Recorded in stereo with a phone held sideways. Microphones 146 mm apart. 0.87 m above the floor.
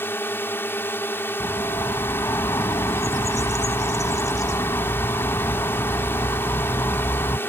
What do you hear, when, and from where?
0.0 s a drone: 15° left (ahead or behind)
1.4 s a bird: 25° left (ahead or behind)